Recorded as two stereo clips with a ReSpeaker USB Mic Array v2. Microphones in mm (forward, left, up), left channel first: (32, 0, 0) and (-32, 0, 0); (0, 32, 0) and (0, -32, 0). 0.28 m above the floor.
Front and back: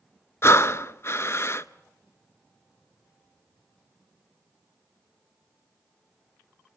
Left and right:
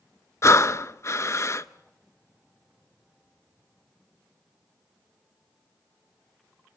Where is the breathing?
45° left, 0.7 m.